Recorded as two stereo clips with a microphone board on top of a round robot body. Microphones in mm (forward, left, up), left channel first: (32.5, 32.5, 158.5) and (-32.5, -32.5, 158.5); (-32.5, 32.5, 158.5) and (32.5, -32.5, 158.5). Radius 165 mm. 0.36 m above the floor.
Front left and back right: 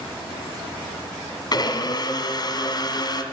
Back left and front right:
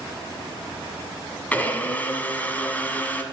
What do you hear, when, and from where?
1.5 s a blender: 65° left, 1.8 m